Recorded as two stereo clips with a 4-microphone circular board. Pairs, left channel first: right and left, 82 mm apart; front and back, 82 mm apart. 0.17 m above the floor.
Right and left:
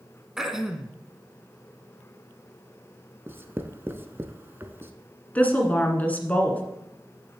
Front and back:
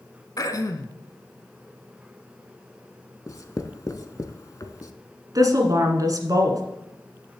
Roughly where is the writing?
Ahead left.